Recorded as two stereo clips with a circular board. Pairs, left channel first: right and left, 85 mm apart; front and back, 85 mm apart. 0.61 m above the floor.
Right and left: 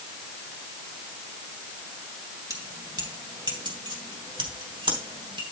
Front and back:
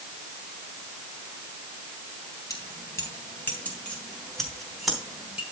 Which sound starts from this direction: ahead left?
Keys jangling, at 2.5 s.